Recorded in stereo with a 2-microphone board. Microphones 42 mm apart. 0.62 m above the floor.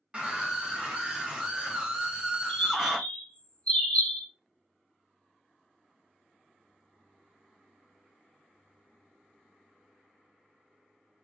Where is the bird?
35° left (ahead or behind), 2 m.